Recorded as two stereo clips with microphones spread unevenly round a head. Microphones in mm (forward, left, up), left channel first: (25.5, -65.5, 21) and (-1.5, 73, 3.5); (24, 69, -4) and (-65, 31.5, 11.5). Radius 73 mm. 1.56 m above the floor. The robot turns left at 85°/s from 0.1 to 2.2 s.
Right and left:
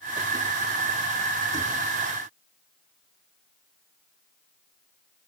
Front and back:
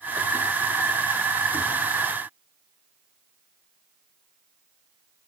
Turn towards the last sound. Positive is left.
No sound to turn to.